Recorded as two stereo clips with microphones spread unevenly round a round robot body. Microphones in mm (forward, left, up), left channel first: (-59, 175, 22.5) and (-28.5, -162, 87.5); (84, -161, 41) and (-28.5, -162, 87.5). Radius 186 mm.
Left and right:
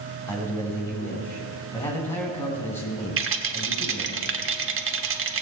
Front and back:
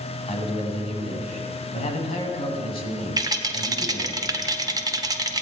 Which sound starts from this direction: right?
A rattle, at 3.2 s.